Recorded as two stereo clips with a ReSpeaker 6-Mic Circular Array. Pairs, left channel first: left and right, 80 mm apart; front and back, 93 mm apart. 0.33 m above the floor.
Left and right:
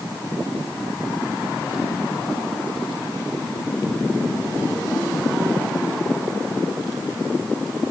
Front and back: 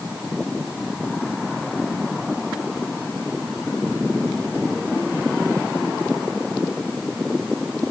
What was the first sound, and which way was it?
Only background noise.